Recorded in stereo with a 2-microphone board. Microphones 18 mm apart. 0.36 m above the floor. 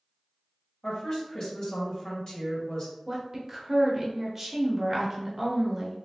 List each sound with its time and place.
0.8 s a woman speaking: 50° left (ahead or behind), 1.5 m
3.1 s a woman speaking: 15° right (ahead or behind), 0.9 m